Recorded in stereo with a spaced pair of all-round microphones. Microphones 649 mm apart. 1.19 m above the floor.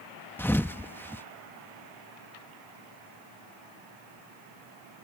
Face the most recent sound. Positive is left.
turn(degrees=5)  # may be behind; listen again after turning